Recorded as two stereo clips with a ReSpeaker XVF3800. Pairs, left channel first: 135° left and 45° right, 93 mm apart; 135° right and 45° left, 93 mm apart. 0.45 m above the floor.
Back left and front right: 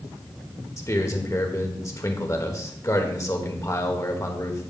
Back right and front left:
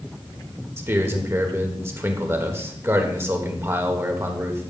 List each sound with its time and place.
0.8 s a man speaking: 95° left, 1.3 m